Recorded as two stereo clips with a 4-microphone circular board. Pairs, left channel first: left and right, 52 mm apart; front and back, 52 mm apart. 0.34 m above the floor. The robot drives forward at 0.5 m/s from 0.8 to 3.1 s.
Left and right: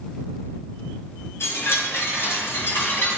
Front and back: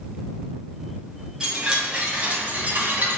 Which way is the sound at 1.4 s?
100° left.